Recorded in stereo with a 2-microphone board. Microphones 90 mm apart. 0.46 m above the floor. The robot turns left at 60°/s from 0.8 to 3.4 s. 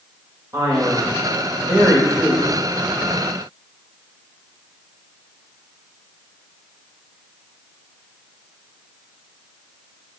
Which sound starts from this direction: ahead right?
A man speaking, at 0.5 s.